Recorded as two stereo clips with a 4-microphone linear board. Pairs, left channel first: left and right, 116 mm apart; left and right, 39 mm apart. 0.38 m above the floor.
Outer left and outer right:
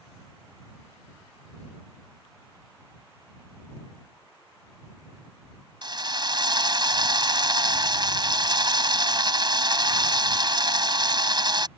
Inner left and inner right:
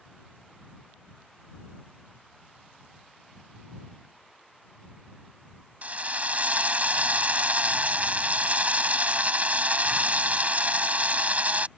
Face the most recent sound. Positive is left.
turn(degrees=-45)  # may be behind; listen again after turning